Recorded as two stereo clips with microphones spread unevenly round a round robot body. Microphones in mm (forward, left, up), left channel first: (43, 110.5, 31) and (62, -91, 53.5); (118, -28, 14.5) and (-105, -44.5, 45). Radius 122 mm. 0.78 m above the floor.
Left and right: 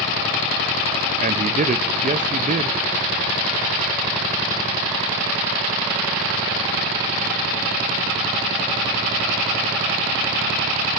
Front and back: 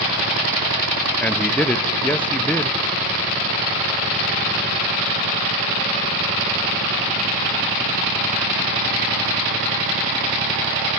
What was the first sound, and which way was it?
A man speaking, 60° right.